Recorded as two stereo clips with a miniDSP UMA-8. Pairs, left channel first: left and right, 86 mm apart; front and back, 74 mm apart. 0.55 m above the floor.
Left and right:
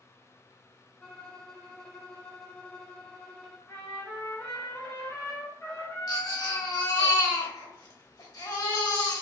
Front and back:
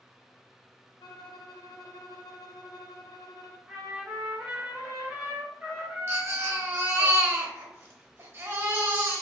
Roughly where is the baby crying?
Behind left.